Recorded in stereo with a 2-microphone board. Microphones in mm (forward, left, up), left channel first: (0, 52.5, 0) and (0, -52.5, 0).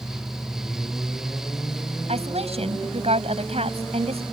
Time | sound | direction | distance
2.1 | a woman speaking | 80° right | ?